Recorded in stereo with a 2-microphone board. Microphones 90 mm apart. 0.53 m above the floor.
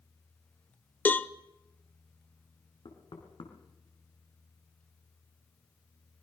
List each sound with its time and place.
1.1 s a cowbell: 20° left (ahead or behind), 0.8 m
2.9 s knocking: 65° left (ahead or behind), 4 m